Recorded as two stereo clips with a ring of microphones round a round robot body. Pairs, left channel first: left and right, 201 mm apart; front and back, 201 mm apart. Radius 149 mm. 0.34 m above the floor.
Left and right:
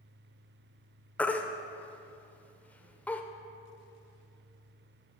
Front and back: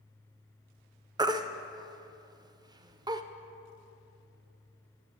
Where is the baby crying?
155° left, 0.5 m.